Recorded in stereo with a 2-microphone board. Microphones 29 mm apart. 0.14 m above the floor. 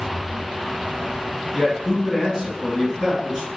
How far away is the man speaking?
About 1.6 m.